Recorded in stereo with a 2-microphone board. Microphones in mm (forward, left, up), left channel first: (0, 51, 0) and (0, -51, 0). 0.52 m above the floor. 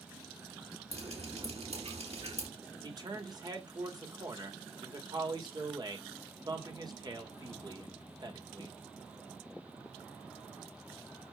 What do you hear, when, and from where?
0.9 s dripping: 85° right, 4 m
2.8 s a man speaking: 40° right (ahead or behind), 2 m